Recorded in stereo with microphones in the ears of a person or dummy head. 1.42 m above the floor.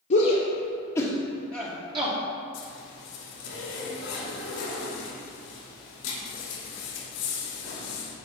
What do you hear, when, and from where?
0.1 s a shout: 50° left (ahead or behind), 1.2 m; by 2.2 s 30° right (ahead or behind), 1.4 m
2.5 s a zipper: 85° left, 2.5 m